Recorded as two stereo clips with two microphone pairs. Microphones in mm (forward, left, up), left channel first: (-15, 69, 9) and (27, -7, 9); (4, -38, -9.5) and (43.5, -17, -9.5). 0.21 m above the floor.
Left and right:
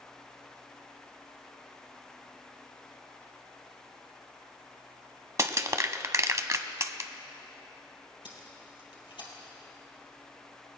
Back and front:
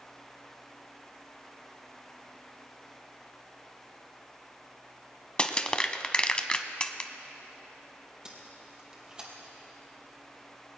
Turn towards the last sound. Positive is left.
turn(degrees=100)